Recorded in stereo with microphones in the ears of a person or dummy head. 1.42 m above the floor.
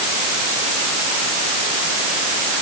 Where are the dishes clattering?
No dishes clattering in this recording.